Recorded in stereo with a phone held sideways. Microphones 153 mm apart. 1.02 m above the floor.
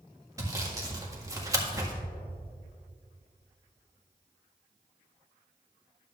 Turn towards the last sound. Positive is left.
turn(degrees=-20)  # may be behind; listen again after turning